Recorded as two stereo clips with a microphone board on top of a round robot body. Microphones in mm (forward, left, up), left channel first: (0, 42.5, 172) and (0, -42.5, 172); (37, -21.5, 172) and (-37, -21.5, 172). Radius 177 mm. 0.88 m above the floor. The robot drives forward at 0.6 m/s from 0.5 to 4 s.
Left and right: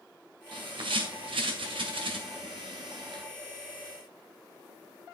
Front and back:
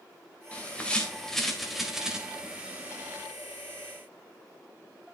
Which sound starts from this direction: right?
A bird, at 0.5 s.